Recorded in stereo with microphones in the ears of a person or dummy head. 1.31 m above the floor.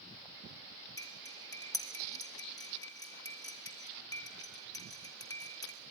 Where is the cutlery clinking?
15° left (ahead or behind), 1.6 m.